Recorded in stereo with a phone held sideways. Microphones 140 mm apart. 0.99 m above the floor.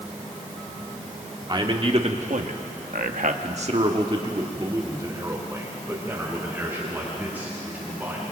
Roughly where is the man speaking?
Right.